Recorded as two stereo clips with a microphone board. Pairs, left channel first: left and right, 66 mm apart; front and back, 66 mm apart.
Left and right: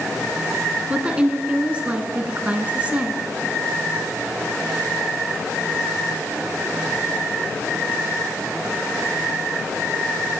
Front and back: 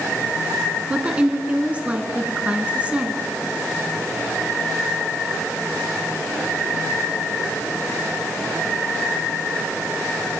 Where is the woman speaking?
135° right, 1.2 m.